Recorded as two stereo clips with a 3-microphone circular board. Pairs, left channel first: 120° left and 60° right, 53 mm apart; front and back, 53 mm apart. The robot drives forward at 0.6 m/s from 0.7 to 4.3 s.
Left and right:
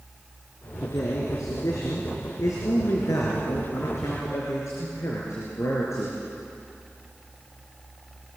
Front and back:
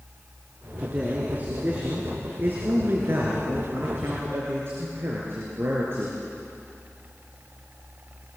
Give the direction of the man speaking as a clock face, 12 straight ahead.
8 o'clock.